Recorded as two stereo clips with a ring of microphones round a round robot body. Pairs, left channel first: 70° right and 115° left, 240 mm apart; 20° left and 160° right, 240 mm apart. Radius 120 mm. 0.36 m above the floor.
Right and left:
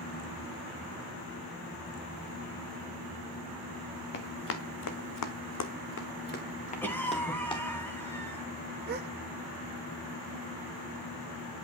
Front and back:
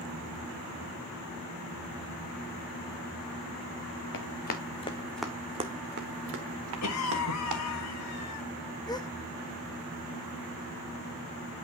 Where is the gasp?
90° left, 1.2 m.